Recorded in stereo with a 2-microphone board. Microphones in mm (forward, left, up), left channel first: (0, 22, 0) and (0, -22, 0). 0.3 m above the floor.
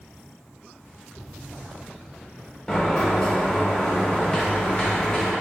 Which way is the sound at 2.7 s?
15° left (ahead or behind).